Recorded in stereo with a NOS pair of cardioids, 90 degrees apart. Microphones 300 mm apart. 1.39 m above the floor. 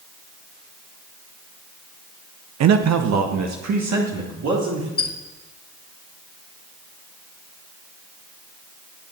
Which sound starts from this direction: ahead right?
A man speaking, at 2.6 s.